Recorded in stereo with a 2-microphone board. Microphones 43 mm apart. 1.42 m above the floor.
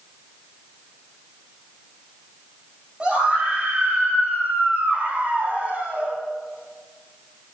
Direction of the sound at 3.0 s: 20° right (ahead or behind).